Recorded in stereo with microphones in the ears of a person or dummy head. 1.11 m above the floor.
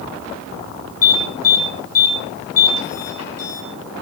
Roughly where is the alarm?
Left.